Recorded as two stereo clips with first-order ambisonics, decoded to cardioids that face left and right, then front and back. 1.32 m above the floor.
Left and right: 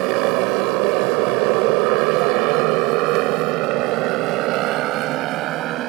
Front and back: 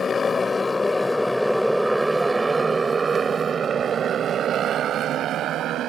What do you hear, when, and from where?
0.0 s a motorcycle: 70° right; by 5.9 s 135° right